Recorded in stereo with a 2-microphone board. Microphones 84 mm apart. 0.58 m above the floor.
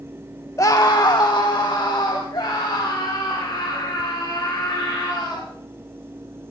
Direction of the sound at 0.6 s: 40° left (ahead or behind).